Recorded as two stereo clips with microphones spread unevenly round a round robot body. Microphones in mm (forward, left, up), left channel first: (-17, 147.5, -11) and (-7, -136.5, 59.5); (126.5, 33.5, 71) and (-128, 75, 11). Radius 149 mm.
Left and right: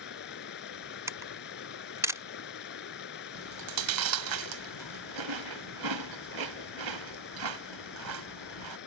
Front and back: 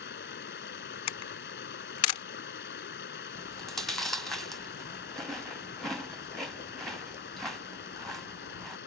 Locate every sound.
0.0 s running water: 40° left
1.1 s a camera shutter: straight ahead
3.3 s chewing: 105° right